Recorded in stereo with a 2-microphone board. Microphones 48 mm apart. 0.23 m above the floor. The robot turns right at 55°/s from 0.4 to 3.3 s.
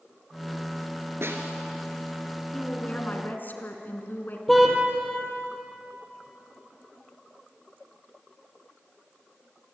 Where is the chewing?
No chewing in this recording.